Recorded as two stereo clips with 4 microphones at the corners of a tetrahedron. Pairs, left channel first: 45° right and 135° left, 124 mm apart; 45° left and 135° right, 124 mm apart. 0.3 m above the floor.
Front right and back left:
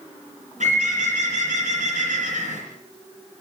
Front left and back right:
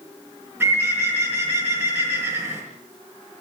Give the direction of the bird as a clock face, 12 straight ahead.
7 o'clock.